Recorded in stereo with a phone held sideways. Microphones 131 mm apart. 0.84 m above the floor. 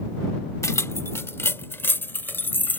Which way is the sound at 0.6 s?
25° left (ahead or behind).